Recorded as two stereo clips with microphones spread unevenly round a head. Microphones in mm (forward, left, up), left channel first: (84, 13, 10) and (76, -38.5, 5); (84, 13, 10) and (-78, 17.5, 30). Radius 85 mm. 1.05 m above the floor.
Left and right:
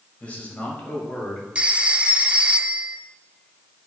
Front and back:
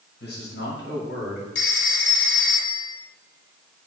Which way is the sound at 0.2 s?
20° left.